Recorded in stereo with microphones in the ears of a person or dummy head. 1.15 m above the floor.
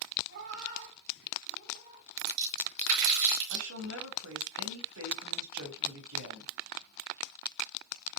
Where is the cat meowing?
60° right (ahead or behind), 5 m; by 2.1 s 40° right (ahead or behind), 4 m.